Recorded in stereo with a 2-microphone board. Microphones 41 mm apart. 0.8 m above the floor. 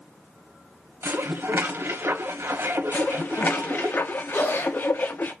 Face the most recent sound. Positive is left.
turn(degrees=75)  # may be behind; listen again after turning